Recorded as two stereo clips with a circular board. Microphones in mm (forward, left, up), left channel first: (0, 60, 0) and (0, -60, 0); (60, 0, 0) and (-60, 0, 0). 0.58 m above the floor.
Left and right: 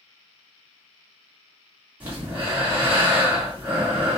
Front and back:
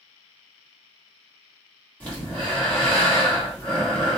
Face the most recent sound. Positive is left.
turn(degrees=-50)